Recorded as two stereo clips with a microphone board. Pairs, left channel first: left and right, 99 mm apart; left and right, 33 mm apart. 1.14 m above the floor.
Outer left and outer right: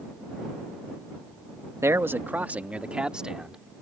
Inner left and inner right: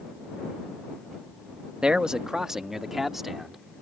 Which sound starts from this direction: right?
A man speaking, at 1.8 s.